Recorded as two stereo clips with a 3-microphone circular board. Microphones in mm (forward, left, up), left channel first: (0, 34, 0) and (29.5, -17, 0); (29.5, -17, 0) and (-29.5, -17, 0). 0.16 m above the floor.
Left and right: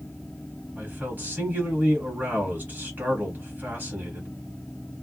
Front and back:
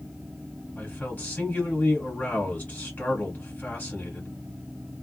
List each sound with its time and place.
0.8 s a man speaking: 35° right, 1.7 m